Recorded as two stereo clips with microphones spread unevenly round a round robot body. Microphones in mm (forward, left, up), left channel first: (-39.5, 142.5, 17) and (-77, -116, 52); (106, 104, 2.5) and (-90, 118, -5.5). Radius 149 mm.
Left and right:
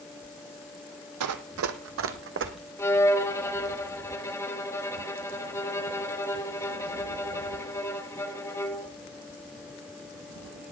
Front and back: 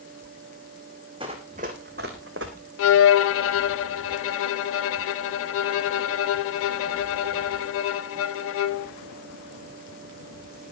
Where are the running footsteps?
110° right, 1.2 m; by 2.5 s 140° right, 1.6 m.